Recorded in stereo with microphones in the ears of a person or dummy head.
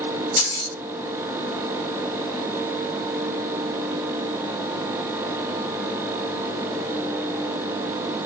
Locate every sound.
0.4 s keys jangling: 15° left (ahead or behind), 1.5 m